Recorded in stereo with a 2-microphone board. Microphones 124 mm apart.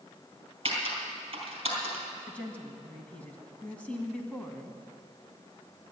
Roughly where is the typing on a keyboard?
Right.